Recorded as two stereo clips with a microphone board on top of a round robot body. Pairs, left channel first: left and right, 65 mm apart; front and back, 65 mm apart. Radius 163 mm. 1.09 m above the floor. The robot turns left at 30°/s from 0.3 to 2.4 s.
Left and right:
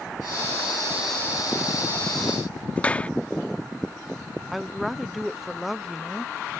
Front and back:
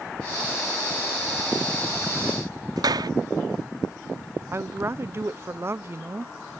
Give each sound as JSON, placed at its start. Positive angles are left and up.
{"t": 2.8, "sound": "a clap", "azimuth_deg": 160}
{"t": 4.5, "sound": "a woman speaking", "azimuth_deg": 180}